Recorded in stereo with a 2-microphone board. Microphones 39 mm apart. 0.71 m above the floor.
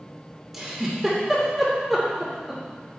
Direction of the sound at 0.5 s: 5° right (ahead or behind).